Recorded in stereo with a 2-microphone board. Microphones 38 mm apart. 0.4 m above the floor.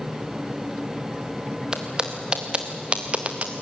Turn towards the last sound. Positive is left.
turn(degrees=-40)  # may be behind; listen again after turning